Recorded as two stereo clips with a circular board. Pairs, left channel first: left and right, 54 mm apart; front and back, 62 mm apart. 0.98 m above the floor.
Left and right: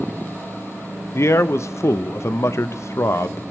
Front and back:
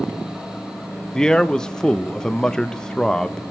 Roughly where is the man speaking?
Left.